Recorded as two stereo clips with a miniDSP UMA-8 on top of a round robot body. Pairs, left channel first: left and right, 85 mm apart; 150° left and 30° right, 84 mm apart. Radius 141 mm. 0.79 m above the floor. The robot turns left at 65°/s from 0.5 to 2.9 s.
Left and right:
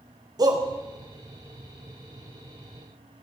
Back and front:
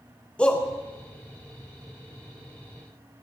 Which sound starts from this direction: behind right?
A shout, at 0.4 s.